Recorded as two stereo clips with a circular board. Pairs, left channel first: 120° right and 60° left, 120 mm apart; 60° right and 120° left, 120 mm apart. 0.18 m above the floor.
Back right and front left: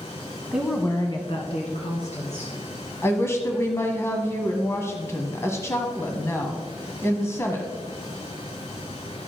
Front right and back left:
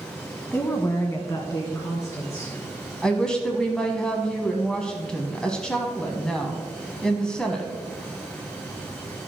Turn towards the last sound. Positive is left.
turn(degrees=-130)